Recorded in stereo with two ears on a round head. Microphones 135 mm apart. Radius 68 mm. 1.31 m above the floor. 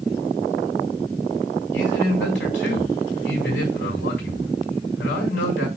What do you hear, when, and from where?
1.7 s a man speaking: 85° left, 6.5 m